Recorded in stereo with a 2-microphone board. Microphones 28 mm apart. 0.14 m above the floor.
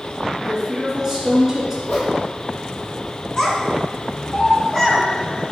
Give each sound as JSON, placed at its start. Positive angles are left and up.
{"t": 0.4, "sound": "a woman speaking", "side_deg": -10, "distance_m": 1.6}
{"t": 1.9, "sound": "a whoosh", "side_deg": 70, "distance_m": 1.5}
{"t": 3.4, "sound": "a child speaking", "side_deg": 25, "distance_m": 1.1}